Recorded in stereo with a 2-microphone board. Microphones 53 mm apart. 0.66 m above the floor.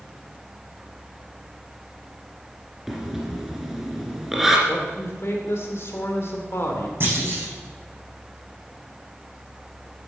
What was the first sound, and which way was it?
Breathing, 5° right (ahead or behind).